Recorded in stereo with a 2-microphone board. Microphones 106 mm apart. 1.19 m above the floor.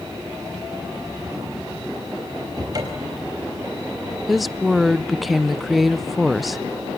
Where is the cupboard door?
40° right (ahead or behind), 4.5 m.